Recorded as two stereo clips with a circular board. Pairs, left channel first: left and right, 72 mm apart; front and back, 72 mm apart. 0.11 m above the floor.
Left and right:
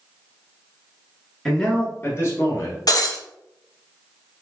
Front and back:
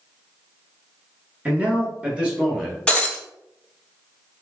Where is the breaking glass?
75° left, 0.7 m.